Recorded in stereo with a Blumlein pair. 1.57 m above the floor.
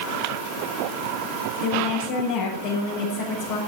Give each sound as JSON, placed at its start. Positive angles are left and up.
{"t": 1.6, "sound": "a woman speaking", "azimuth_deg": 50, "distance_m": 6.5}